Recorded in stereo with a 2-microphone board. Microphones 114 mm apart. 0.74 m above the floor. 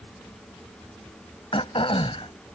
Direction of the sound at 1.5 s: 50° left (ahead or behind).